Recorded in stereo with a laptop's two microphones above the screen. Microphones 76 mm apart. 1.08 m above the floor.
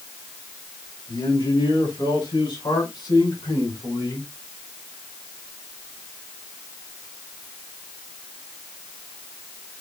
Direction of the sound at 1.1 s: 80° left.